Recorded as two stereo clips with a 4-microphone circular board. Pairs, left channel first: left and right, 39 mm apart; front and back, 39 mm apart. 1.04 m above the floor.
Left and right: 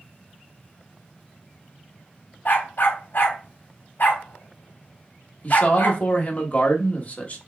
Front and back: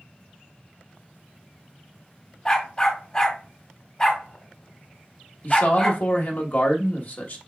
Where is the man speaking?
35° left, 1.2 m.